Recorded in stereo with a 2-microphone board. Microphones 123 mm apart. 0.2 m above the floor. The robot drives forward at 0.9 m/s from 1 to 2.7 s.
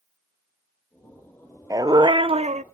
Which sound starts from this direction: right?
A dog barking, at 1.7 s.